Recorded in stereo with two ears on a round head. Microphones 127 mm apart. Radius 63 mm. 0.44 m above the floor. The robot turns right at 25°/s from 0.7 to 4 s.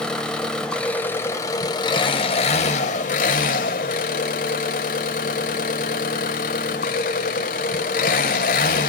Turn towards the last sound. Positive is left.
turn(degrees=90)